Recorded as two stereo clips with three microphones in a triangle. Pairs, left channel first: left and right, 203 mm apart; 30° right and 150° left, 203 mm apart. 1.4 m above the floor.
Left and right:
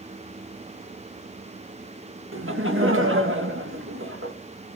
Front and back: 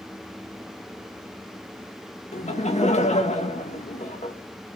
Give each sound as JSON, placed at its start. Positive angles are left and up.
{"t": 2.3, "sound": "laughter", "azimuth_deg": -85, "distance_m": 2.0}